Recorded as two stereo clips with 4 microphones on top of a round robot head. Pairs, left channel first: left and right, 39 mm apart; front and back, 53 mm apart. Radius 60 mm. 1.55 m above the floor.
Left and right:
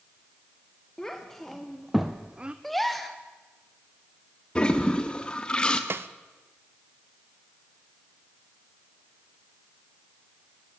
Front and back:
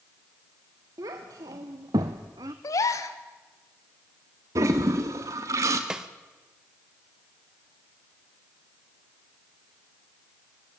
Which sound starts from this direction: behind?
A child speaking, at 1.0 s.